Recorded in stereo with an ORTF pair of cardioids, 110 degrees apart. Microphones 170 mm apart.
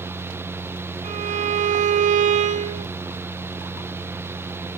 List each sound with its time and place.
0.0 s a fan: 15° right, 0.9 m
1.0 s a violin: 45° right, 2.5 m